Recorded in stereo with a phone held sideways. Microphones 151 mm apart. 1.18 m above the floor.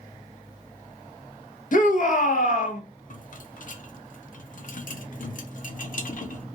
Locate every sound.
1.7 s a shout: 60° left (ahead or behind), 0.9 m
3.1 s a rattle: 60° left (ahead or behind), 0.6 m